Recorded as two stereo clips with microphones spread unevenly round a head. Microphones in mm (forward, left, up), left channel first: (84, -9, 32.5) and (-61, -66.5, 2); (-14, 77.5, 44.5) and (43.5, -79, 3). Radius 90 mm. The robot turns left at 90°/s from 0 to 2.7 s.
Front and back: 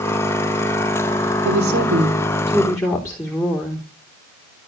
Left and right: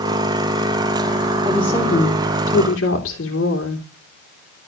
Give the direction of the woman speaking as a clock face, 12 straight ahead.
5 o'clock.